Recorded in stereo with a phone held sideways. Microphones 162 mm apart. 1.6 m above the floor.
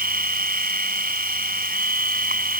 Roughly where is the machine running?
Right.